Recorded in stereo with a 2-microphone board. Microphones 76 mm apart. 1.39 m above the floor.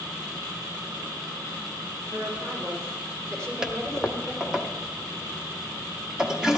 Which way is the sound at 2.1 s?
45° right (ahead or behind).